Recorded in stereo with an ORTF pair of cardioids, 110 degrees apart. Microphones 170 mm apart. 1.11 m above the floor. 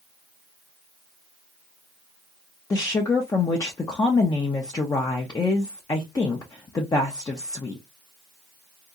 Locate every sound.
2.7 s a woman speaking: 20° left, 0.6 m